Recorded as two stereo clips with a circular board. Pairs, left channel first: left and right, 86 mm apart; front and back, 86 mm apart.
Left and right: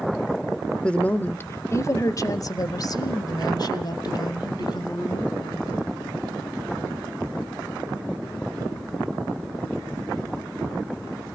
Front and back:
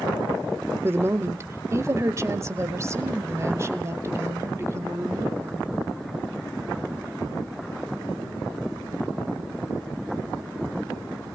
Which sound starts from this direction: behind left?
A woman speaking, at 0.8 s.